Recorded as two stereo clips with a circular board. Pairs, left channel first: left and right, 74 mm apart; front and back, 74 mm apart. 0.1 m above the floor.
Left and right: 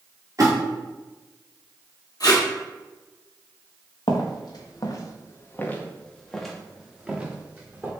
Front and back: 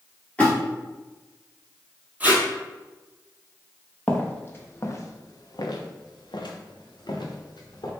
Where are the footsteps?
70° left, 1.2 m; by 7.9 s 25° right, 1.5 m.